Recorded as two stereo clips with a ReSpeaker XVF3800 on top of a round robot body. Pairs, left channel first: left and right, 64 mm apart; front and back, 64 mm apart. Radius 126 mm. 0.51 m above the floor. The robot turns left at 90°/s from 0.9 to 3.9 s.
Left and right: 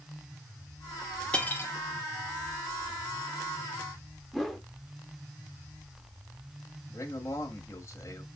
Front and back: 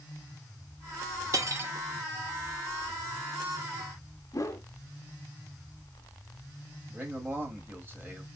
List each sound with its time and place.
1.3 s cutlery clinking: 160° left, 0.9 m; by 1.7 s 125° left, 0.9 m
4.3 s a whoosh: straight ahead, 1.0 m
6.9 s a man speaking: 125° left, 1.2 m